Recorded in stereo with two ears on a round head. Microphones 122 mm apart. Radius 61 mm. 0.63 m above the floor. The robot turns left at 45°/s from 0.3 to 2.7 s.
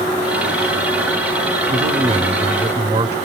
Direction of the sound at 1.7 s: 105° right.